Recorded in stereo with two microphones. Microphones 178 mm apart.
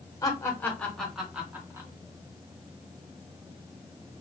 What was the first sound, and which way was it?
Laughter, 20° left (ahead or behind).